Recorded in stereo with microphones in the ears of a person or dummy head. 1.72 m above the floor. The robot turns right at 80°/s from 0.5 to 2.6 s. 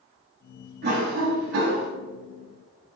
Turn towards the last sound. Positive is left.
turn(degrees=10)